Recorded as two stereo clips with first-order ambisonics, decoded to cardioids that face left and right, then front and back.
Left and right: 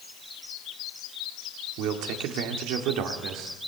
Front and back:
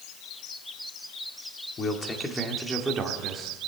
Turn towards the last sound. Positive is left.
turn(degrees=-125)